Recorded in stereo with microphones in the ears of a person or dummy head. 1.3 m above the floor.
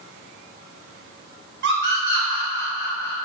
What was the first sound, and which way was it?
A scream, 65° right (ahead or behind).